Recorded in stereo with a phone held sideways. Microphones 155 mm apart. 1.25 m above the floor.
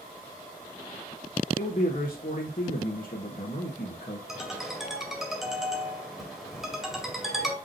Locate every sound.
1.6 s a man speaking: 65° left (ahead or behind), 1.4 m
4.3 s a ringtone: centre (ahead or behind), 2 m